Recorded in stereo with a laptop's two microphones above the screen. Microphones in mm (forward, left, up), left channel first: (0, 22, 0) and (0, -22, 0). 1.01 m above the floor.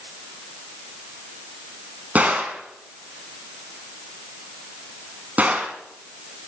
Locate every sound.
2.1 s a gunshot: 40° right (ahead or behind), 3.5 m